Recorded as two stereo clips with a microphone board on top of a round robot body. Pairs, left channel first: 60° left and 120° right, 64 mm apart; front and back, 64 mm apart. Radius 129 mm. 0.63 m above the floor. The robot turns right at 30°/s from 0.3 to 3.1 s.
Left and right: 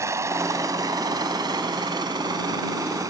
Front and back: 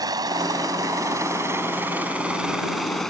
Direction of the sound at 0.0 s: 165° right.